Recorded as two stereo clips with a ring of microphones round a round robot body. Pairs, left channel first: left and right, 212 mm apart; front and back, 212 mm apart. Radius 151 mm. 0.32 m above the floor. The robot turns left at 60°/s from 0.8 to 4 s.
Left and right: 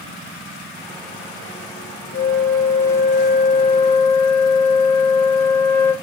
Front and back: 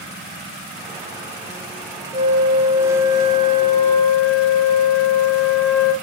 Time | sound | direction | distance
2.1 | a flute | 120° left | 0.8 m